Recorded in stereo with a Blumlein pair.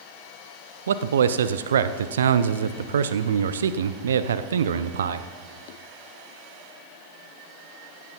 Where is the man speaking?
65° right, 0.5 m.